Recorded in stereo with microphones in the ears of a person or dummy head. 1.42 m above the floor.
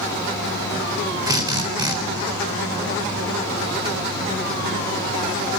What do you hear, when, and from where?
1.3 s a drill: 25° right (ahead or behind), 3 m